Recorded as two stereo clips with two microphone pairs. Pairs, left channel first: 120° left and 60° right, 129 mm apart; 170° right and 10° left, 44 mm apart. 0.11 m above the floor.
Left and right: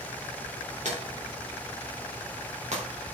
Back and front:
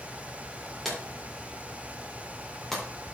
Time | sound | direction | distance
0.8 | a drawer | 85° right | 4 m